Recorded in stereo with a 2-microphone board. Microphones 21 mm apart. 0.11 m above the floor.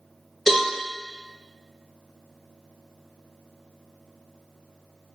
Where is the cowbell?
20° left (ahead or behind), 1.8 m.